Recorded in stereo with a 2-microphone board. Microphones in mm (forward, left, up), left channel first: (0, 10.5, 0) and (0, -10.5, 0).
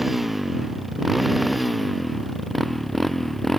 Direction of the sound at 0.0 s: 15° right (ahead or behind).